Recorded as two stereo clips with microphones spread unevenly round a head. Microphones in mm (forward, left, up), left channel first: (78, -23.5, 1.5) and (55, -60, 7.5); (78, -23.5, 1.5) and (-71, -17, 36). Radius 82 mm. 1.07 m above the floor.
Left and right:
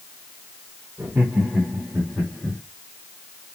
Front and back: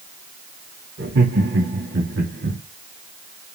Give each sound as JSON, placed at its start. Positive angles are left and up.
{"t": 1.0, "sound": "laughter", "azimuth_deg": 170, "distance_m": 3.0}